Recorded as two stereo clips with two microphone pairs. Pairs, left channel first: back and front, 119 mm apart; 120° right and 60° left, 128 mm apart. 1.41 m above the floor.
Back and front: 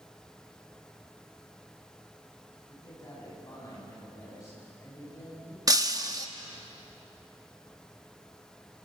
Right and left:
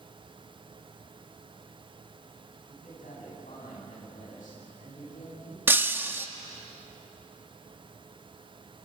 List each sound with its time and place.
2.7 s a man speaking: 120° right, 9.5 m
5.7 s breaking glass: 5° left, 0.9 m